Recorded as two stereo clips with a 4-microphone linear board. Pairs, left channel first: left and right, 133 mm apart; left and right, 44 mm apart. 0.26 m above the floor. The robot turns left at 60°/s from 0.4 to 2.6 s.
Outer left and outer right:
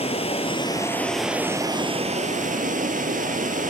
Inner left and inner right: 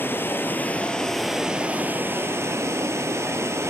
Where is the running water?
50° left, 1.1 m; by 3.7 s 85° right, 1.1 m.